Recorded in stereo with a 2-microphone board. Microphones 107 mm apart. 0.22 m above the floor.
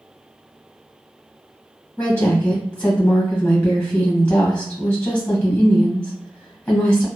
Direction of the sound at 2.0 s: 15° left (ahead or behind).